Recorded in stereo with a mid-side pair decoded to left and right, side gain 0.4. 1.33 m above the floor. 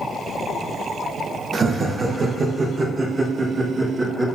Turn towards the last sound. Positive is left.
turn(degrees=-35)